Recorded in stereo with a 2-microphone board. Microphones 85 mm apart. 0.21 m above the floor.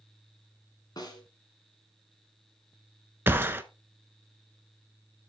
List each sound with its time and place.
1.0 s a snare drum: 50° left (ahead or behind), 1.9 m
3.3 s a gunshot: 25° right (ahead or behind), 0.6 m